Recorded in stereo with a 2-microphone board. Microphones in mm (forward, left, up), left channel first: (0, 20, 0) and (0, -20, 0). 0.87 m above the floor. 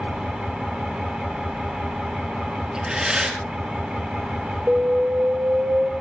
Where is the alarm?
65° right (ahead or behind), 2.5 m.